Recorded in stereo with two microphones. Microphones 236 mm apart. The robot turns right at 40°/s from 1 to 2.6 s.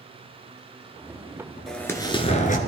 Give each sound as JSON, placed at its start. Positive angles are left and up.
{"t": 1.7, "sound": "an explosion", "azimuth_deg": 0, "distance_m": 1.4}